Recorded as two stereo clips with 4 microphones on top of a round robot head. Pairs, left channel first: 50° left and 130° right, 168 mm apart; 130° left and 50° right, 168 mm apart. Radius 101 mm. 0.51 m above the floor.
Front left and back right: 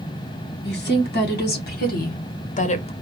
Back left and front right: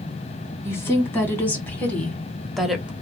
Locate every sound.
0.6 s a woman speaking: 55° left, 1.8 m; by 2.9 s 30° left, 0.7 m